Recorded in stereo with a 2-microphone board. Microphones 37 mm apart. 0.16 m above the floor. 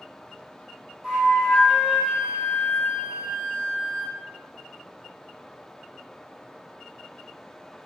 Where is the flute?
10° right (ahead or behind), 2.0 m.